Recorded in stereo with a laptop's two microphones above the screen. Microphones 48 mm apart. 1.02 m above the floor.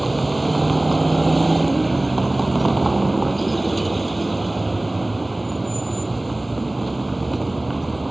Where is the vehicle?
Centre (ahead or behind).